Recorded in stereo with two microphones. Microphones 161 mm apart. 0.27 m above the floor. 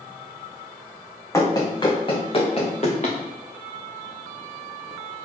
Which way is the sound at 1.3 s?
20° left (ahead or behind).